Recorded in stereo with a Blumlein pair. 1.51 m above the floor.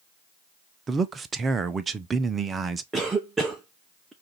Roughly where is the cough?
Ahead.